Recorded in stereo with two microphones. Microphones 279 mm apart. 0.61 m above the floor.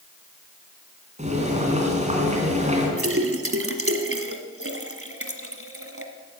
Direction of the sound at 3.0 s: 50° right (ahead or behind).